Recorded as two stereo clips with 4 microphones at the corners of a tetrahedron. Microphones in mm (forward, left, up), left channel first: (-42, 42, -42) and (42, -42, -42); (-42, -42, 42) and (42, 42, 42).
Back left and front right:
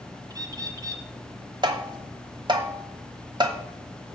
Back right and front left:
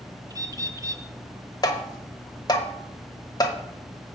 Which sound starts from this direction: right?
Tapping, at 1.6 s.